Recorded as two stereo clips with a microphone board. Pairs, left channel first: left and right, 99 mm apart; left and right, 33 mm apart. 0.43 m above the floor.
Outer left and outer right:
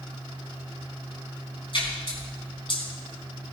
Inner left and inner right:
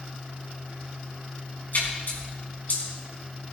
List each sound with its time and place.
1.7 s a splash: 60° left (ahead or behind), 4 m